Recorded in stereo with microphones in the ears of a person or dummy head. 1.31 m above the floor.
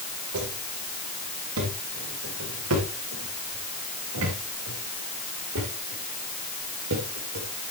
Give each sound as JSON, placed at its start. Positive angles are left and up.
{"t": 0.3, "sound": "footsteps", "side_deg": -75, "distance_m": 6.5}